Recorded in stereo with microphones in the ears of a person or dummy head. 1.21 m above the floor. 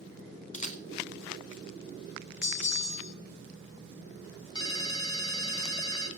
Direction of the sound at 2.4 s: 65° left (ahead or behind).